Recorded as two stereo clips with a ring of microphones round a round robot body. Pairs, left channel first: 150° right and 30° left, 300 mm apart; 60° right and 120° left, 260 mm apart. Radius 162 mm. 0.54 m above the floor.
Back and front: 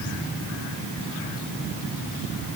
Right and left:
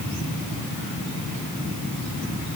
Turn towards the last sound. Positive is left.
No sound to turn to.